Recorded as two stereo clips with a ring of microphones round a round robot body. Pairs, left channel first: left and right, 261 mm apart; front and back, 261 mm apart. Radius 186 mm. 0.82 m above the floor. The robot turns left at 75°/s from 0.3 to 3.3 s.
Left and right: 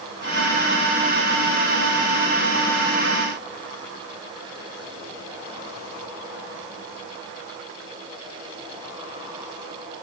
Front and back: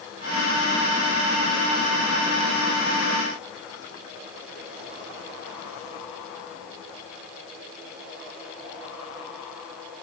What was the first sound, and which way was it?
Only background noise.